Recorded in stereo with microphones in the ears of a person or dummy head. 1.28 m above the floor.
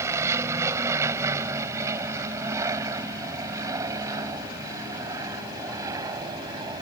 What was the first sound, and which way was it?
An aircraft, 20° right (ahead or behind).